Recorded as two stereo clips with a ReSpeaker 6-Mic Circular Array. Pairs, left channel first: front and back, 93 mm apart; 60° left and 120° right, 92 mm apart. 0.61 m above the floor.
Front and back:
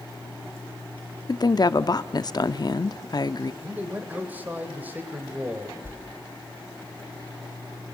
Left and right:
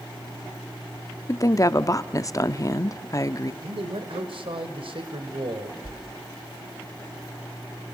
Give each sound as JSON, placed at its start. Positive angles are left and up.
{"t": 1.3, "sound": "a woman speaking", "azimuth_deg": 20, "distance_m": 0.8}
{"t": 3.6, "sound": "a man speaking", "azimuth_deg": -110, "distance_m": 2.5}
{"t": 5.8, "sound": "a whoosh", "azimuth_deg": -115, "distance_m": 1.2}